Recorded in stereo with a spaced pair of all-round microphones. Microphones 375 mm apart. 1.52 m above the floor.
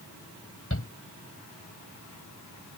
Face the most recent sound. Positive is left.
turn(degrees=35)  # may be behind; listen again after turning